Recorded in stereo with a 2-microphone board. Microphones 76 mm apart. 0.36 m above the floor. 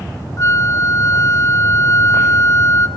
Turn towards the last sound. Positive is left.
turn(degrees=40)  # may be behind; listen again after turning